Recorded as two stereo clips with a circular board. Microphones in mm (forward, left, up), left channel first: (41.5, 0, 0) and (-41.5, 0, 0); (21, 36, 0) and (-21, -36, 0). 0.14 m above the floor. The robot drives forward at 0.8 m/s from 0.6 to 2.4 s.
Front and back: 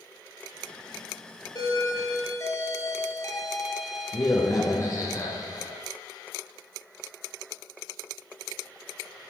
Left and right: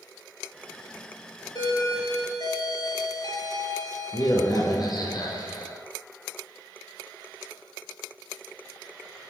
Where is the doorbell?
30° left, 3 m; by 5.8 s 40° left, 2.5 m.